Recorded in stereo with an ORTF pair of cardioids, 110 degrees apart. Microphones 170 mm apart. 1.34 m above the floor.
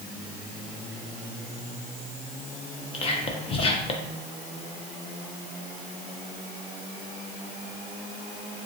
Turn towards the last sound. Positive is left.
turn(degrees=35)